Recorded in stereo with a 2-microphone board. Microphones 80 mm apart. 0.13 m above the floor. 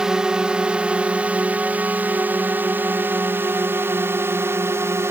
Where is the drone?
10° right (ahead or behind); by 5.1 s 30° right (ahead or behind).